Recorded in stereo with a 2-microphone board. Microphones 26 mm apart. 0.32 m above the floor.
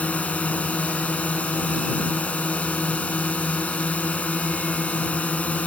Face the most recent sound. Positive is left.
turn(degrees=60)  # may be behind; listen again after turning